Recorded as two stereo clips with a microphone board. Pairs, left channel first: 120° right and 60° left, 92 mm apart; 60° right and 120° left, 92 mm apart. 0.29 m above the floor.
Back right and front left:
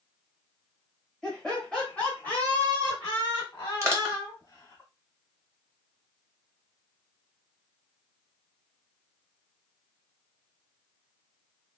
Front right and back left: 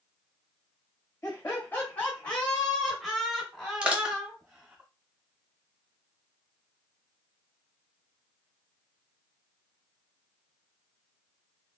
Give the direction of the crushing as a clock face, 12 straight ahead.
10 o'clock.